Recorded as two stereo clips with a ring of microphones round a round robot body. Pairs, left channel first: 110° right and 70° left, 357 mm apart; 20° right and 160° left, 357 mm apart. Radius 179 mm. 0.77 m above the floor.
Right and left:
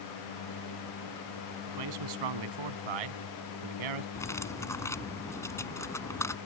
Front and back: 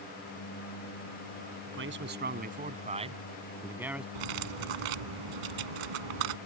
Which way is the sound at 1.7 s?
100° left.